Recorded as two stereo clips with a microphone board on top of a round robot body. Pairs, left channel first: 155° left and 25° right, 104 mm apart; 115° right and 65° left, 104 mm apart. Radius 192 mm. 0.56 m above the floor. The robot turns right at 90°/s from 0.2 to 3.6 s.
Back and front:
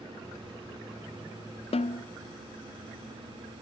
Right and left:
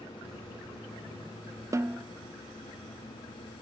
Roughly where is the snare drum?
Behind left.